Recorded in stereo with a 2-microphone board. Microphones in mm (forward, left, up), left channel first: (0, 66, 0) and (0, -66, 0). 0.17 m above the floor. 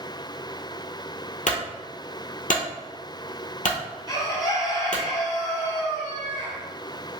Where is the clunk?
80° left, 1.0 m.